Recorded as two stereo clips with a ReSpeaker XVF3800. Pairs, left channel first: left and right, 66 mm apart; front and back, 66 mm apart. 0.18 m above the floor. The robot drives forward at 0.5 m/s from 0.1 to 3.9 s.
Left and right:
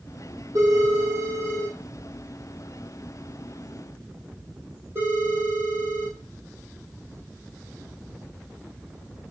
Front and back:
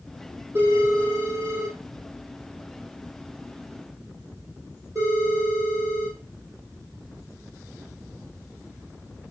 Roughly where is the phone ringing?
Behind right.